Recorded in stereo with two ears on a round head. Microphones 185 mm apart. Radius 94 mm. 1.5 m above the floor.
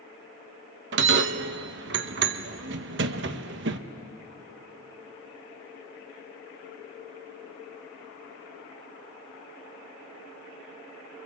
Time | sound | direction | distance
0.9 | a bell | 60° right (ahead or behind) | 1.0 m